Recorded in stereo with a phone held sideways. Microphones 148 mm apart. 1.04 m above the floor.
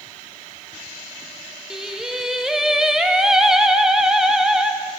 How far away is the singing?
About 0.5 m.